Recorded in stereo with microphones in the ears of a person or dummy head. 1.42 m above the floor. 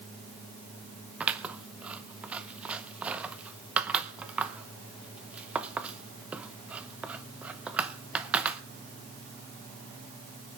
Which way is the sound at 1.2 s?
5° right (ahead or behind).